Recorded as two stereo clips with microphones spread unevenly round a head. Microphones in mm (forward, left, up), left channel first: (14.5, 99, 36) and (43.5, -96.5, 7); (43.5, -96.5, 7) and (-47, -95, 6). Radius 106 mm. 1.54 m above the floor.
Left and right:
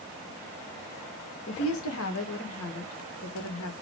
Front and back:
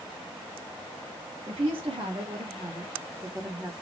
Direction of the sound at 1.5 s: 130° left.